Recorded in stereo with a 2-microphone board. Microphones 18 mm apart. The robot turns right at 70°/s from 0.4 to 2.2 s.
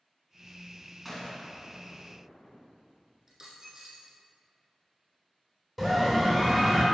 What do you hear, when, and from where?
1.1 s a gunshot: 5° right (ahead or behind), 1.6 m; by 2.6 s 65° left (ahead or behind), 1.6 m
3.3 s a dropped coin: 30° right (ahead or behind), 2.0 m
5.8 s a scream: 10° left (ahead or behind), 2 m